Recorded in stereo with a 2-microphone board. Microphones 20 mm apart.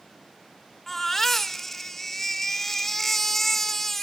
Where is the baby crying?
20° left (ahead or behind), 1.6 m.